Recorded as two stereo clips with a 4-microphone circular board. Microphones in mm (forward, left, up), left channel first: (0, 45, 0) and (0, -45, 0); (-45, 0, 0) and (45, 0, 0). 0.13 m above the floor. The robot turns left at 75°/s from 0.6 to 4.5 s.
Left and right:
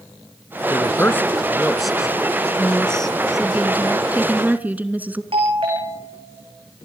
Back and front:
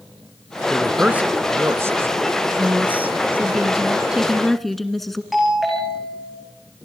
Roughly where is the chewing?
No chewing in this recording.